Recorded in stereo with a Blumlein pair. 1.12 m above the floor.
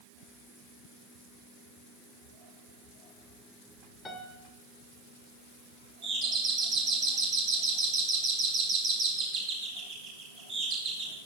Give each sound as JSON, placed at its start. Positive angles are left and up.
{"t": 4.0, "sound": "a piano", "azimuth_deg": 15, "distance_m": 1.7}
{"t": 6.0, "sound": "a doorbell", "azimuth_deg": -35, "distance_m": 4.5}